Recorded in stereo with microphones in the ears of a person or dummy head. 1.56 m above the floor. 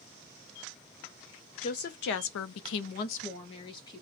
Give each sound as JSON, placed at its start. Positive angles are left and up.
{"t": 1.6, "sound": "a woman speaking", "side_deg": 40, "distance_m": 0.8}